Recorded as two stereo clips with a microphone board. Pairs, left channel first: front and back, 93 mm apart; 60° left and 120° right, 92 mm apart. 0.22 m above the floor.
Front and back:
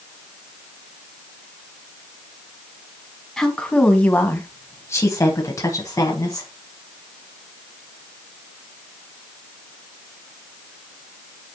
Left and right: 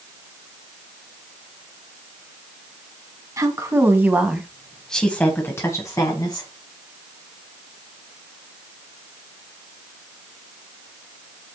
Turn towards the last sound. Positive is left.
turn(degrees=40)